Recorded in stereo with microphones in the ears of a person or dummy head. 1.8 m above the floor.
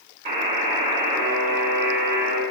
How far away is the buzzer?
About 4 m.